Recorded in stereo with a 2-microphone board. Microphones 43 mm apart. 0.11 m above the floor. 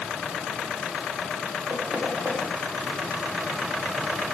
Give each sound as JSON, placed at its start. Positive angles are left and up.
{"t": 1.7, "sound": "knocking", "side_deg": -75, "distance_m": 8.0}